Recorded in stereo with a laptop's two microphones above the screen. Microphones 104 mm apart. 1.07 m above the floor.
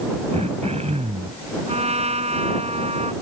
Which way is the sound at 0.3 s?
85° right.